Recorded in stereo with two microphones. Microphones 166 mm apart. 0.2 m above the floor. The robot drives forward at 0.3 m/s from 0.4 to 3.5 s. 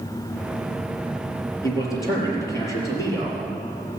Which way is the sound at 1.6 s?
20° left (ahead or behind).